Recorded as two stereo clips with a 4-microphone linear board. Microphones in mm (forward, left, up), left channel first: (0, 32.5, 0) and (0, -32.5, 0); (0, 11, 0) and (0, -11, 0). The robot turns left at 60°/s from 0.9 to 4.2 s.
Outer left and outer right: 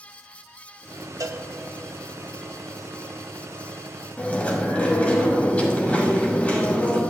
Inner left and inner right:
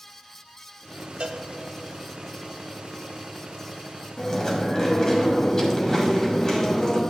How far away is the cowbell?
About 0.6 m.